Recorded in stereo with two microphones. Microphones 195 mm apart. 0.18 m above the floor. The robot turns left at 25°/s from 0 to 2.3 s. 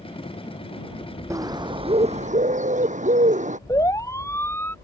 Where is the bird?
15° right (ahead or behind); by 3.6 s 40° right (ahead or behind).